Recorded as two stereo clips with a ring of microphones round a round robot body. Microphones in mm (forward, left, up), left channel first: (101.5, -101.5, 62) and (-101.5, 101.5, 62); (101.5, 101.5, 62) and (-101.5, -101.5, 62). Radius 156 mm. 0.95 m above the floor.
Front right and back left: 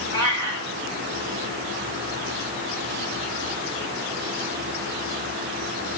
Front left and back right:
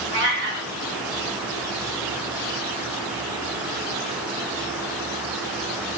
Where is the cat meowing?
175° left, 5 m.